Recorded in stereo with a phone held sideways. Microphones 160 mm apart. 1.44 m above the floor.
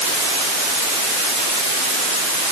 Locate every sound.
Only background noise.